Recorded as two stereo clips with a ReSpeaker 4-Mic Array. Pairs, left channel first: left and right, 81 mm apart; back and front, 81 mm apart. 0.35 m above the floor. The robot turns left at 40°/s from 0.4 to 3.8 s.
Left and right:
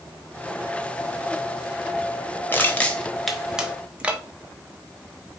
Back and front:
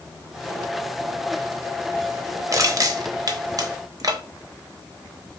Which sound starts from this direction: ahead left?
Crushing, at 2.5 s.